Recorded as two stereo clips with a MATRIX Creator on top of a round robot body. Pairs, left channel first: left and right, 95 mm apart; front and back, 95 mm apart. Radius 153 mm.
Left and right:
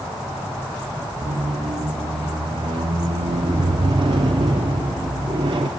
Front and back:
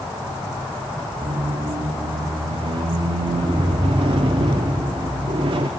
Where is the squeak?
135° right, 0.6 m.